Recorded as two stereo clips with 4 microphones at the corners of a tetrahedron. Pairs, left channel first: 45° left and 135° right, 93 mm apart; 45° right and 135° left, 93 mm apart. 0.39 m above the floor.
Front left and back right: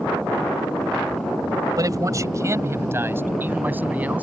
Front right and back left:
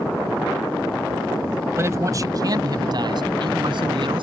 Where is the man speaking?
170° right; by 4.2 s 155° left.